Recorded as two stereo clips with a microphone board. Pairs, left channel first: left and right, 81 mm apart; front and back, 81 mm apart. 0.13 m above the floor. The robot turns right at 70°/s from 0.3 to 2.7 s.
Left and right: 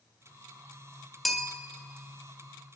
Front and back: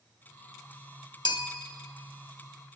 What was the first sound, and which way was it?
A bell, straight ahead.